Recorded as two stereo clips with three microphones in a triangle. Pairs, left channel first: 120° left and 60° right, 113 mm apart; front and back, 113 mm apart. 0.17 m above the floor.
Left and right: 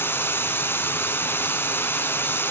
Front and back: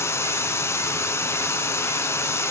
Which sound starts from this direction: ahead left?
Running water, at 0.0 s.